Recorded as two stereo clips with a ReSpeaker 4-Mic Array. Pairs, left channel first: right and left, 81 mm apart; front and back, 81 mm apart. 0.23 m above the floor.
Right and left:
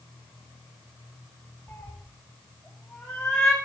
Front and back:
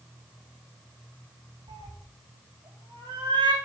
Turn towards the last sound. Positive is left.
turn(degrees=-175)